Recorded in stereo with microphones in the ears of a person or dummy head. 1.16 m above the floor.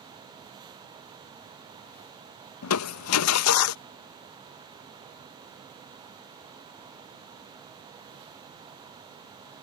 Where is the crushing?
80° left.